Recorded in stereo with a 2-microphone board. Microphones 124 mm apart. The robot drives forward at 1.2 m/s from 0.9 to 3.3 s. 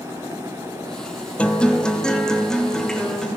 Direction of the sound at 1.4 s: 10° left (ahead or behind).